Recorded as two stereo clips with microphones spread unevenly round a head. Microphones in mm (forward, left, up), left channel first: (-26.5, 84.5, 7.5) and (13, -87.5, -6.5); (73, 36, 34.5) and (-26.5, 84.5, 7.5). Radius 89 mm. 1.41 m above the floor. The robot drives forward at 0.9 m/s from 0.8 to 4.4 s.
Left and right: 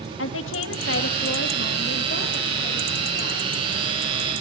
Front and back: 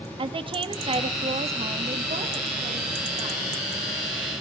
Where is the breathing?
I don't hear breathing.